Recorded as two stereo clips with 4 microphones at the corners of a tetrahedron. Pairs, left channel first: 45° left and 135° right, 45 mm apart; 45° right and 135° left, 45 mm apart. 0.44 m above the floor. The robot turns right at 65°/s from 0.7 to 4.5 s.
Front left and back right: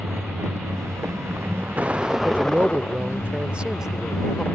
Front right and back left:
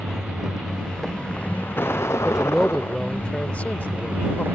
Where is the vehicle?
150° right; by 4.5 s 95° left.